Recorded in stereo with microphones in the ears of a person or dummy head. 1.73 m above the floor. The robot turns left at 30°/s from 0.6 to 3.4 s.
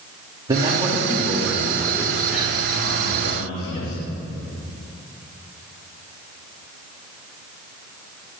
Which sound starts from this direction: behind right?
A man speaking, at 0.5 s.